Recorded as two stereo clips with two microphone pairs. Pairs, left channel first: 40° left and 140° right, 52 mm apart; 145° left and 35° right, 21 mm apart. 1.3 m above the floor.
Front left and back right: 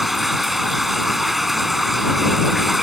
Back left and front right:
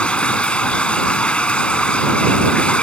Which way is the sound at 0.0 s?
135° left.